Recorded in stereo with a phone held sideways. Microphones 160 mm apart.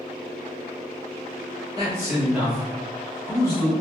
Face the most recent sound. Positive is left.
turn(degrees=30)  # may be behind; listen again after turning